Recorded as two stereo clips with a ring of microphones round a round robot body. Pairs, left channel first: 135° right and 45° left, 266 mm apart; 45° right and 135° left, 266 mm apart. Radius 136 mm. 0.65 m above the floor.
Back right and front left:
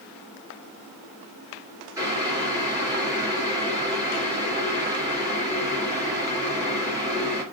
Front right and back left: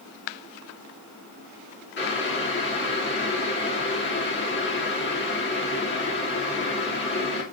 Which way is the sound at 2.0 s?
25° right.